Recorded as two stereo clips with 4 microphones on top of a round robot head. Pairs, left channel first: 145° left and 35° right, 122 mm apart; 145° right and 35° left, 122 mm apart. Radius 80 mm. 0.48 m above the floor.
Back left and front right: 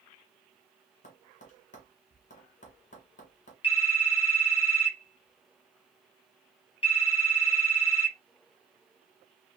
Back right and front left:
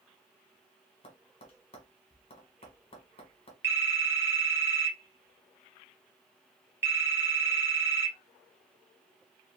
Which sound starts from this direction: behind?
Tapping, at 1.0 s.